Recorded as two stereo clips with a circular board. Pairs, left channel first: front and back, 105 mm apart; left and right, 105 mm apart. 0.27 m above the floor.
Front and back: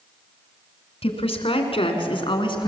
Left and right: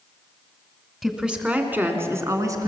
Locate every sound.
1.0 s a woman speaking: 5° right, 2.5 m; by 2.7 s 35° right, 2.5 m